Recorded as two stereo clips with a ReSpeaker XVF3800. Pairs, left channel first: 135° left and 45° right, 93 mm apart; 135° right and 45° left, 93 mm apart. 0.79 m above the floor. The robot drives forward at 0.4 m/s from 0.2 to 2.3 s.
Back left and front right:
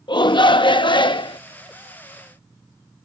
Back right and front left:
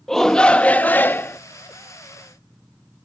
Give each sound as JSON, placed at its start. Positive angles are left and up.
{"t": 0.1, "sound": "a shout", "azimuth_deg": 140}